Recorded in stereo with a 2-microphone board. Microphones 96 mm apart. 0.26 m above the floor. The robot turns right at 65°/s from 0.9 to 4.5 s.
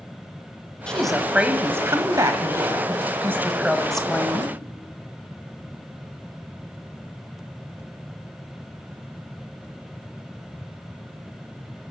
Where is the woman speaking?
165° left, 1.1 m; by 4.6 s 40° left, 1.1 m.